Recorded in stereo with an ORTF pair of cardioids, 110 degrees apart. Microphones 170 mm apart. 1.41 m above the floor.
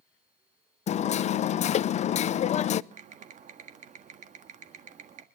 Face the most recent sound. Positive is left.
turn(degrees=-45)